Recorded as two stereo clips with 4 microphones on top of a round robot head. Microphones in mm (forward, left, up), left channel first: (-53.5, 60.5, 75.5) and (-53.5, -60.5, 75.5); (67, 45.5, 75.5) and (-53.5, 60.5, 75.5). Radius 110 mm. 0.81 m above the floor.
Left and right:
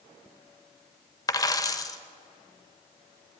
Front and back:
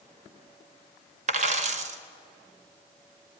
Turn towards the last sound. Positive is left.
turn(degrees=150)